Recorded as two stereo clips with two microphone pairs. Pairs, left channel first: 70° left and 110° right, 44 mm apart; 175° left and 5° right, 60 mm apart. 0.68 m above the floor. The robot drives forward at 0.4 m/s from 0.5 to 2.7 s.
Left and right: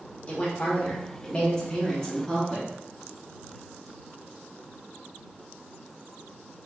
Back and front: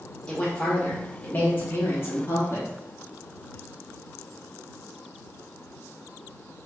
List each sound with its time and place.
0.3 s a woman speaking: 110° left, 1.0 m; by 2.7 s 150° left, 1.5 m